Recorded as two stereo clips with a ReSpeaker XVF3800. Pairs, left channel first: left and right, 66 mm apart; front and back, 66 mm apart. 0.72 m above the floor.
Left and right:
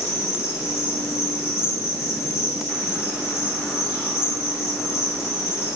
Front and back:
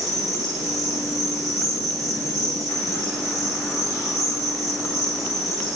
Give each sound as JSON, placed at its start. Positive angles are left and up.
{"t": 0.0, "sound": "an insect", "azimuth_deg": 140, "distance_m": 8.5}